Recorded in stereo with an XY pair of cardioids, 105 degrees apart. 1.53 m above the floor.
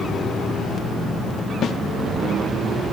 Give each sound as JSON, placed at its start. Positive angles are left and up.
{"t": 1.6, "sound": "a snare drum", "azimuth_deg": 55, "distance_m": 0.9}